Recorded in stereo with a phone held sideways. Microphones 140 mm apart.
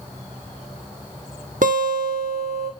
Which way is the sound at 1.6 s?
70° right (ahead or behind).